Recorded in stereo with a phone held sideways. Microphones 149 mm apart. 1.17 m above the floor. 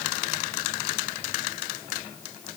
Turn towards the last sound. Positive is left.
No sound to turn to.